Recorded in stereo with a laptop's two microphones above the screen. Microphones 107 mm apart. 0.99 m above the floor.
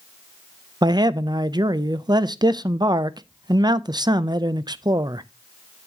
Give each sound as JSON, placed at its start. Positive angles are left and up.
{"t": 0.8, "sound": "a man speaking", "side_deg": -40, "distance_m": 0.5}